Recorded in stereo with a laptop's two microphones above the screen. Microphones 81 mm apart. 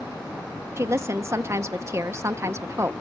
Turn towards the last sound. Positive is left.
turn(degrees=-35)  # may be behind; listen again after turning